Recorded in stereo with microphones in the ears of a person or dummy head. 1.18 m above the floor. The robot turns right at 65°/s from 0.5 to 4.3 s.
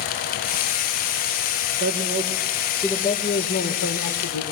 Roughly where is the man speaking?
Ahead right.